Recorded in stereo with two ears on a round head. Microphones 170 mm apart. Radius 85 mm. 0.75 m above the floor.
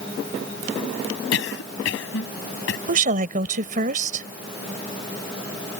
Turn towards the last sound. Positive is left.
turn(degrees=-45)  # may be behind; listen again after turning